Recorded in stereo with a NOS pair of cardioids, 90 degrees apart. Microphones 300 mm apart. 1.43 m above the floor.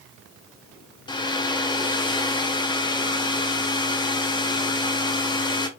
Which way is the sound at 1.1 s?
15° left.